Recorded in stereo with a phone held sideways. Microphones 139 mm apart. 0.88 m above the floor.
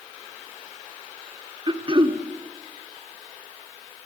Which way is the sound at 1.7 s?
35° right (ahead or behind).